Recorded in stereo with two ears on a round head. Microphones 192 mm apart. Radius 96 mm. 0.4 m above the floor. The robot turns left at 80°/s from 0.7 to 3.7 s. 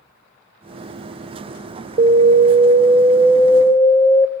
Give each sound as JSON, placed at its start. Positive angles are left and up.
{"t": 2.0, "sound": "an alarm", "azimuth_deg": -70, "distance_m": 1.0}